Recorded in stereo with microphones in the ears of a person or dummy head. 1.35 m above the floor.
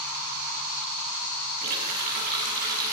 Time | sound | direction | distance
1.6 | a running tap | 45° right (ahead or behind) | 6.5 m